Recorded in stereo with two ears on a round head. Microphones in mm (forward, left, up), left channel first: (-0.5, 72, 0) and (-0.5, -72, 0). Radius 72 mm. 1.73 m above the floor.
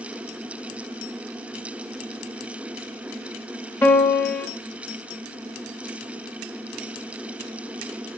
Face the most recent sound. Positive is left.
turn(degrees=15)  # may be behind; listen again after turning